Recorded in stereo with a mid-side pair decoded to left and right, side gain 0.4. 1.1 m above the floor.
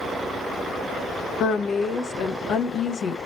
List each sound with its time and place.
1.4 s a woman speaking: 65° left, 1.0 m